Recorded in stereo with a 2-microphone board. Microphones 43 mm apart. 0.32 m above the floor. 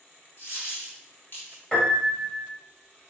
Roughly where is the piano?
Centre.